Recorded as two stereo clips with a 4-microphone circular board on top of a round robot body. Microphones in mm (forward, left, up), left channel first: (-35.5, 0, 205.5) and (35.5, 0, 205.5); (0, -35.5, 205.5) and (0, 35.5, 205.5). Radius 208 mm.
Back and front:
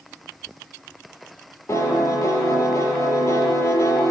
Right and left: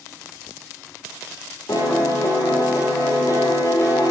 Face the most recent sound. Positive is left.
turn(degrees=-130)